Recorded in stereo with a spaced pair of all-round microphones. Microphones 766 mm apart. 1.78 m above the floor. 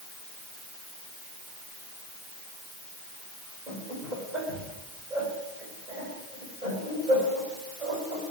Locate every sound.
3.7 s laughter: 70° right (ahead or behind), 5 m